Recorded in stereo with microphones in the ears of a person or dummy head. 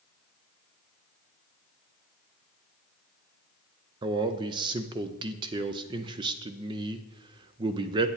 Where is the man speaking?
25° right (ahead or behind), 0.5 m.